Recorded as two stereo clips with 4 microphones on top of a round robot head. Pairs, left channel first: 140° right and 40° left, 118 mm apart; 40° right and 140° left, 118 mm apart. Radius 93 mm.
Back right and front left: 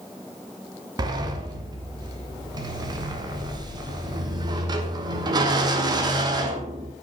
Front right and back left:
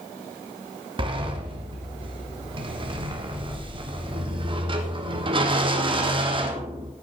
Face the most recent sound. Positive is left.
turn(degrees=95)